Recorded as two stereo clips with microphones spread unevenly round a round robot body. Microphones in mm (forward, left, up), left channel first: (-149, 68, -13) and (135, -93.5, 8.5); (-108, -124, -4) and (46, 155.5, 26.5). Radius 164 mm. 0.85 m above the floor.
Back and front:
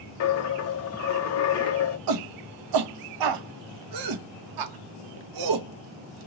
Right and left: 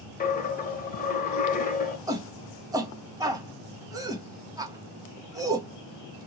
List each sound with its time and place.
0.2 s a dropped coin: straight behind, 0.7 m
2.1 s a shout: 20° right, 0.7 m